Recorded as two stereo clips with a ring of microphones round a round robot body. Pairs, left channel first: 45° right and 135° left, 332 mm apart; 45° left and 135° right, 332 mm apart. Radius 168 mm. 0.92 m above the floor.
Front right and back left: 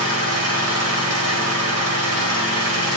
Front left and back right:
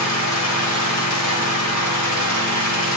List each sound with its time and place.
0.0 s an engine running: 85° left, 3.5 m